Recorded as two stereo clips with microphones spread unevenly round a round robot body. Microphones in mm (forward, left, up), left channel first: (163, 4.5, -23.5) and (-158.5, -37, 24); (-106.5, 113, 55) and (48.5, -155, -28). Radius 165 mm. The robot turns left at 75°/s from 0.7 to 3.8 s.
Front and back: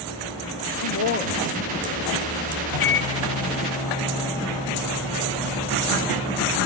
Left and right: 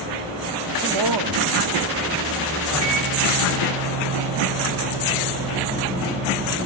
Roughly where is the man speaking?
Ahead right.